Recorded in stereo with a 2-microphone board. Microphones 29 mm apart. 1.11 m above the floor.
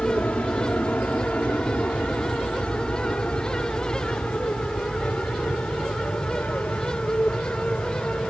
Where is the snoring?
No snoring in this recording.